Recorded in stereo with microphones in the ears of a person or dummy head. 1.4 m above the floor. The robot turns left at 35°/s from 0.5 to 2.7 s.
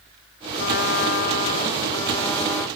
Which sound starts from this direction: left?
A trumpet, at 0.6 s.